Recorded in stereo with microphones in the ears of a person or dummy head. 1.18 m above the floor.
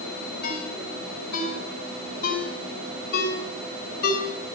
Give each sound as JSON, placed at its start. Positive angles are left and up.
{"t": 0.4, "sound": "a ringtone", "side_deg": 55, "distance_m": 8.0}